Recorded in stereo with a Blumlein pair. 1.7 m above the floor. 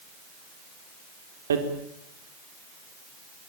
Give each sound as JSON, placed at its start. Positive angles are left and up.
{"t": 1.5, "sound": "hammering", "azimuth_deg": -65, "distance_m": 4.0}